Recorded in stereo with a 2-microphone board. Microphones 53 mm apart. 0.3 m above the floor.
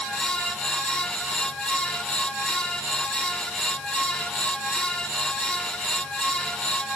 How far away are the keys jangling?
No keys jangling in this recording.